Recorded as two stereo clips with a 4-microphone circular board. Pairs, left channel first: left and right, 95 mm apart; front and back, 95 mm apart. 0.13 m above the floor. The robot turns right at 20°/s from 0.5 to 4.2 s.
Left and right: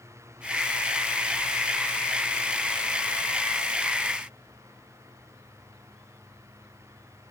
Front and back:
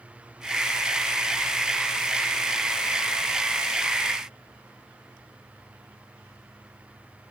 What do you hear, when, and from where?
Only background noise.